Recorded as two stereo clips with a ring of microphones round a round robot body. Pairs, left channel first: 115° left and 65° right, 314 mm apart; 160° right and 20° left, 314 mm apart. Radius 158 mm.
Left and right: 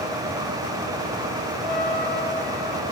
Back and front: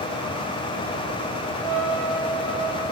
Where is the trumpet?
25° left, 1.7 m.